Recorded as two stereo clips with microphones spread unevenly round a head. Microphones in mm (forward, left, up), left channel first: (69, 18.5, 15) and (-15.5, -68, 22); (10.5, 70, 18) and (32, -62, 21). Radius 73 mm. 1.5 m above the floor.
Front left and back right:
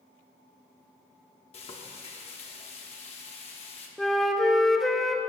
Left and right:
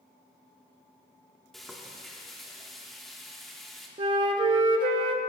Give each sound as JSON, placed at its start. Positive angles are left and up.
{"t": 1.5, "sound": "frying", "azimuth_deg": 10, "distance_m": 1.2}
{"t": 4.0, "sound": "a flute", "azimuth_deg": -45, "distance_m": 0.5}